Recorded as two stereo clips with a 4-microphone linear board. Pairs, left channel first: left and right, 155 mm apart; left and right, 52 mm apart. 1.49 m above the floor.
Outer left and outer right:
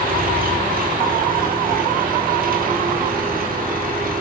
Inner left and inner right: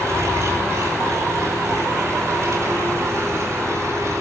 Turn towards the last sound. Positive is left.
turn(degrees=-65)  # may be behind; listen again after turning